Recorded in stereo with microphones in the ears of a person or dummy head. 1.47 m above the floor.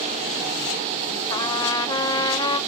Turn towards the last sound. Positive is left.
turn(degrees=20)  # may be behind; listen again after turning